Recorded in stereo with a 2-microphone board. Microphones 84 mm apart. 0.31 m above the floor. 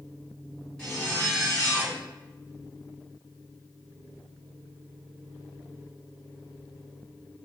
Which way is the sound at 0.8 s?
10° left (ahead or behind).